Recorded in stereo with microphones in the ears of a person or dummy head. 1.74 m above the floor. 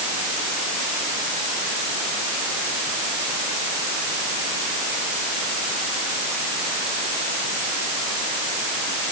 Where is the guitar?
I don't hear a guitar.